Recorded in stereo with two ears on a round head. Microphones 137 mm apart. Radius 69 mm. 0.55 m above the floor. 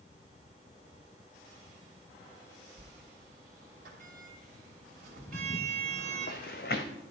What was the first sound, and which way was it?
A sliding door, 60° right (ahead or behind).